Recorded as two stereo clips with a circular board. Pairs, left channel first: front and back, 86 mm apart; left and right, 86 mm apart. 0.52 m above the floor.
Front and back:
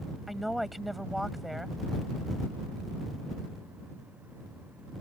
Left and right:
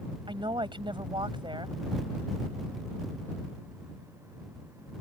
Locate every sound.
0.3 s a woman speaking: 90° right